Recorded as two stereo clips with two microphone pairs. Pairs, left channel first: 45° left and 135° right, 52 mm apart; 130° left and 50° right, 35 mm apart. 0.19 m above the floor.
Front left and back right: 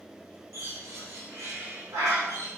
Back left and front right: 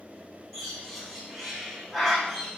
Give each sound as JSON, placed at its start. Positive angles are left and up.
{"t": 0.5, "sound": "a bird", "azimuth_deg": -140, "distance_m": 7.0}